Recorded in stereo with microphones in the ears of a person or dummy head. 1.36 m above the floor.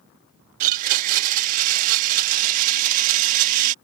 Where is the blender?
50° right (ahead or behind).